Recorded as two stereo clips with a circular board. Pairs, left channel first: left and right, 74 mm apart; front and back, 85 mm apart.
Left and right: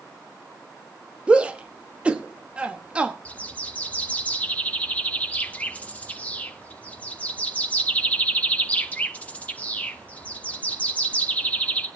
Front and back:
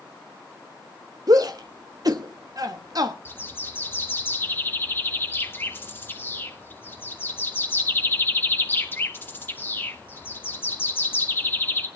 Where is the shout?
160° right, 1.0 m.